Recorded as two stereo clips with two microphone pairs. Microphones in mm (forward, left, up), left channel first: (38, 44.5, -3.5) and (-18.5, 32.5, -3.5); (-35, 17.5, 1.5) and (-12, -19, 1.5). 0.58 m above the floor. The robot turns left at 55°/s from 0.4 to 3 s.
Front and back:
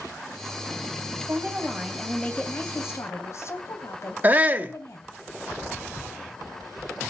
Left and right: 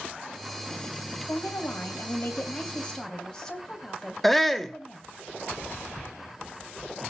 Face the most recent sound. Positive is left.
turn(degrees=65)